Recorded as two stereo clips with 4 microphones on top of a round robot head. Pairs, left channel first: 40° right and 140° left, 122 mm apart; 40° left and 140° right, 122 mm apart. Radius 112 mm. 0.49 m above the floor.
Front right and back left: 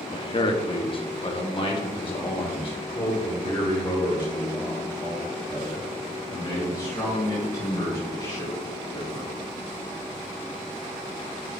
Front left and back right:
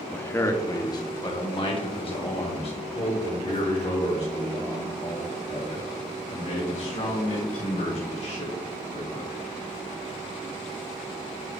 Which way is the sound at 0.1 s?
30° right.